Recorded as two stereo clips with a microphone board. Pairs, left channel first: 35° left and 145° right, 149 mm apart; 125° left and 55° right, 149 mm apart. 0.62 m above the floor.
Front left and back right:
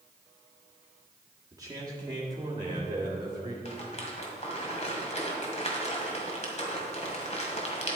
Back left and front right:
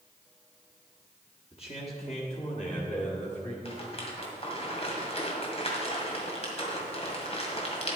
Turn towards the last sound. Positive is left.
turn(degrees=75)